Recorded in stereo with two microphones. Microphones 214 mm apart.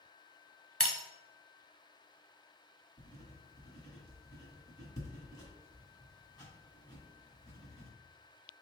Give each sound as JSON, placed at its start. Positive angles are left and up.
{"t": 0.8, "sound": "breaking glass", "side_deg": -80, "distance_m": 0.6}
{"t": 3.0, "sound": "writing", "side_deg": 20, "distance_m": 1.9}